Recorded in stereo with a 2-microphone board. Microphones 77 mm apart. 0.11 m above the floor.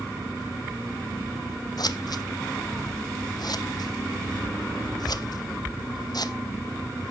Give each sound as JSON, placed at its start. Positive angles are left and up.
{"t": 1.8, "sound": "scissors", "side_deg": 65, "distance_m": 0.7}